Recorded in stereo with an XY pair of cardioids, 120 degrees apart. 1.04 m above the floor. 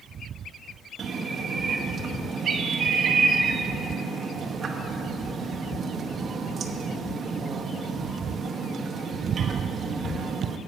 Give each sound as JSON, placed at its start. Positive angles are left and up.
{"t": 1.0, "sound": "a bird", "azimuth_deg": -40, "distance_m": 1.0}